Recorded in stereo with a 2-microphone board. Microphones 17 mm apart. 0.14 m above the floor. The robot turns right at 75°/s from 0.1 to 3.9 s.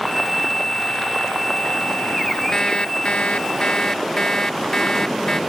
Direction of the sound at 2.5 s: 35° left.